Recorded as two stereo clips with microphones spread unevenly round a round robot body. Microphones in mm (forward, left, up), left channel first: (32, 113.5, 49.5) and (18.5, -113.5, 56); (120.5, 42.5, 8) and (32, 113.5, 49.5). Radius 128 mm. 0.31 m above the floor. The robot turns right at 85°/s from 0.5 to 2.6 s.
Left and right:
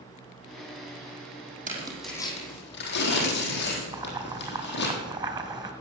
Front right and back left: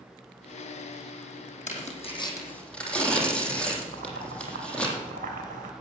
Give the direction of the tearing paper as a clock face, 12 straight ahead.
1 o'clock.